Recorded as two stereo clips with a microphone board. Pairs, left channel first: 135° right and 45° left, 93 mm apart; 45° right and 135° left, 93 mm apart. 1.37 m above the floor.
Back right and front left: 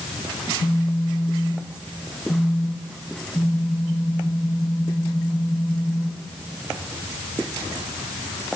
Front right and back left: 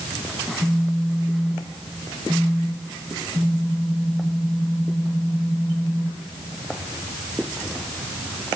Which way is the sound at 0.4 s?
175° right.